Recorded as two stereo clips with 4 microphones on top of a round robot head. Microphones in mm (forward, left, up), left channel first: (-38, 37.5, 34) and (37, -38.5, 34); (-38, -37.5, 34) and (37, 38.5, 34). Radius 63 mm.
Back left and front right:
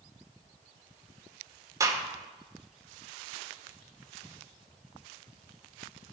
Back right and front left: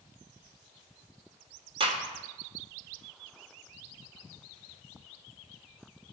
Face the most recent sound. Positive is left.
turn(degrees=10)